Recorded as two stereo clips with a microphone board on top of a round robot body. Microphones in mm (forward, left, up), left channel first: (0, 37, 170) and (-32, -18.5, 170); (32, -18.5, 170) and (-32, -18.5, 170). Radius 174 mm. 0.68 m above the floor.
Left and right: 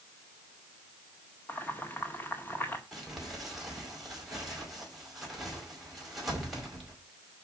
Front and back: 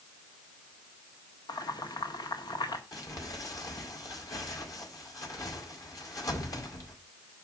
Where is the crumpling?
30° right, 5 m.